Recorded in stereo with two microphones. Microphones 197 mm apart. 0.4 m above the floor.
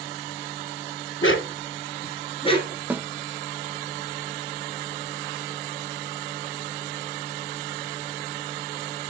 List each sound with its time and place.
1.2 s a dog barking: 80° left, 0.9 m; by 2.8 s 20° left (ahead or behind), 1.8 m
2.9 s a snare drum: 10° right (ahead or behind), 0.6 m